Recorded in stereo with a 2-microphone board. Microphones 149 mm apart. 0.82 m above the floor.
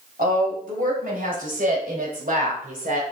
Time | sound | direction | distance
0.2 | a woman speaking | 70° right (ahead or behind) | 4 m